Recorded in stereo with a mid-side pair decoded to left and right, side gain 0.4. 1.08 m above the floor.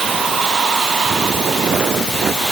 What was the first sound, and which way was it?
Only background noise.